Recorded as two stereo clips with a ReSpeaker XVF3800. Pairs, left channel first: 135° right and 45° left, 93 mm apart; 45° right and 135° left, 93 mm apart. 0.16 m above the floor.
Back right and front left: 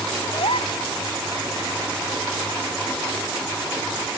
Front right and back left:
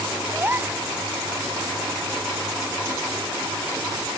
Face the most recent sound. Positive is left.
turn(degrees=-155)